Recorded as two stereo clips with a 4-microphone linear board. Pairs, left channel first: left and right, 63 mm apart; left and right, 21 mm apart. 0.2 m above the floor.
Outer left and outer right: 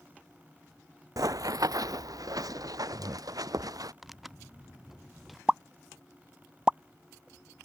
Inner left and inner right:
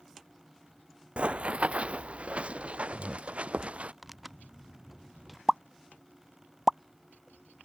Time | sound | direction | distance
1.2 | running footsteps | 70° right (ahead or behind) | ?
4.0 | tearing paper | centre (ahead or behind) | ?
5.5 | a pop | 15° right (ahead or behind) | ?